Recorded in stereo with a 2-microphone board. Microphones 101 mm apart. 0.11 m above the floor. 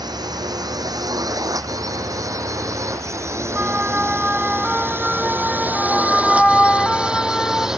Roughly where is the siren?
Centre.